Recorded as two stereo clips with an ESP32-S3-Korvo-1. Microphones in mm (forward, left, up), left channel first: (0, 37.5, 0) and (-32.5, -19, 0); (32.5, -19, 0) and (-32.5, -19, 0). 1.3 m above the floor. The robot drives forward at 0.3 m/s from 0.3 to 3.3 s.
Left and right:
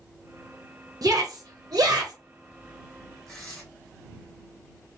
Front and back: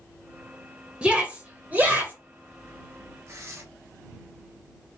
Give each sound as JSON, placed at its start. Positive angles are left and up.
{"t": 1.0, "sound": "a shout", "azimuth_deg": -100, "distance_m": 0.9}
{"t": 3.3, "sound": "tearing paper", "azimuth_deg": 145, "distance_m": 1.7}